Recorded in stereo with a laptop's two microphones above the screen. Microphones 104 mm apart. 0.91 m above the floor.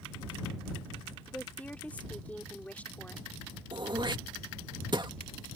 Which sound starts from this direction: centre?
A woman speaking, at 1.3 s.